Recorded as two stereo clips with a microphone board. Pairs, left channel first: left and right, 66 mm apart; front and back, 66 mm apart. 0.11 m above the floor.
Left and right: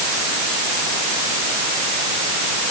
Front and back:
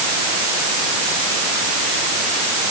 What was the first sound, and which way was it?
Only background noise.